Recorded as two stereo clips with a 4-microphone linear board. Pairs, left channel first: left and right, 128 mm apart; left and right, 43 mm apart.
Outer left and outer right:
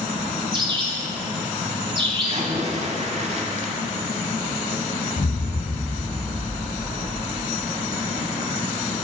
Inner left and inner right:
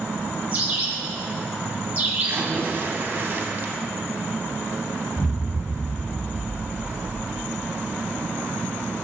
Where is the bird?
35° right (ahead or behind), 1.4 m.